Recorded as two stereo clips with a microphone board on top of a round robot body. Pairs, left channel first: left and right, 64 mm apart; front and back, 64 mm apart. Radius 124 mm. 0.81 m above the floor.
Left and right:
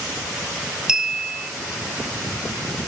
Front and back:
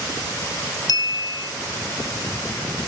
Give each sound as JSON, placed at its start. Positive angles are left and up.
{"t": 0.9, "sound": "a clink", "azimuth_deg": -10, "distance_m": 0.6}